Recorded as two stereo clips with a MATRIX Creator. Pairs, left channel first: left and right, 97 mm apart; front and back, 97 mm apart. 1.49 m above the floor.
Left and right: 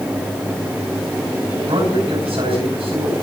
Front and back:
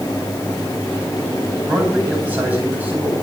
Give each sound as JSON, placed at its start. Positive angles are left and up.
{"t": 1.7, "sound": "a man speaking", "azimuth_deg": -105, "distance_m": 9.5}